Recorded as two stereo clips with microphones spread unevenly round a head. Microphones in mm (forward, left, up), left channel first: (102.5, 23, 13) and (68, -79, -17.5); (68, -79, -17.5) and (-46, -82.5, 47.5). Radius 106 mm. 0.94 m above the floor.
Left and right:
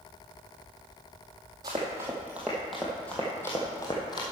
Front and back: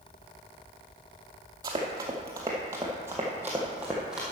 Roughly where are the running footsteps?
Behind.